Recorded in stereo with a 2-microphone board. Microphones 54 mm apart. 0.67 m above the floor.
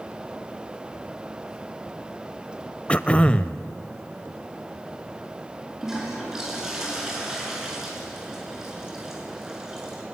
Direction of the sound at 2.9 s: 25° left (ahead or behind).